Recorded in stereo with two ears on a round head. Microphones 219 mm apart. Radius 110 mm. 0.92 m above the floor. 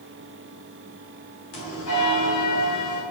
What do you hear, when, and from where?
1.5 s a bell: 55° left (ahead or behind), 5 m